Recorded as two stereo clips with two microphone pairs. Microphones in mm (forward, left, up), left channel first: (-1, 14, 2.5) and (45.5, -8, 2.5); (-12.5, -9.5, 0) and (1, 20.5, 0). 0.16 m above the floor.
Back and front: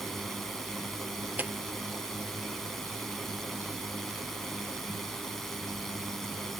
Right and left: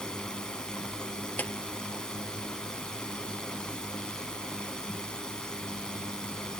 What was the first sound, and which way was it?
A drone, 130° right.